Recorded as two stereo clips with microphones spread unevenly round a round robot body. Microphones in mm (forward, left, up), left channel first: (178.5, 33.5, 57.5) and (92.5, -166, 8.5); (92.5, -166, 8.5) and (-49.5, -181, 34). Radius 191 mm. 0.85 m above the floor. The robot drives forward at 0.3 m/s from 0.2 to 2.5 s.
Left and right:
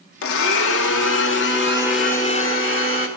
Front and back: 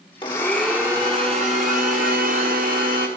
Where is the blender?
85° left, 0.6 m; by 3.1 s 140° left, 0.8 m.